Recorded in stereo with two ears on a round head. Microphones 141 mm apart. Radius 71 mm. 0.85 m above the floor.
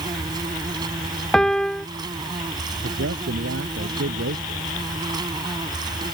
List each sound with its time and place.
0.0 s an insect: 25° right (ahead or behind)
1.3 s a piano: 5° left (ahead or behind)
2.8 s a man speaking: 85° right